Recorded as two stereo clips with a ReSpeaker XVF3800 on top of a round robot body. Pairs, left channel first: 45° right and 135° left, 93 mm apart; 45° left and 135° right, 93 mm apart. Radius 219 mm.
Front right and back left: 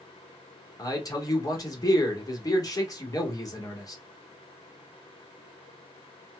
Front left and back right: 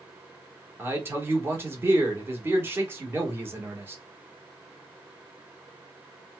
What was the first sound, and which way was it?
A man speaking, 75° right.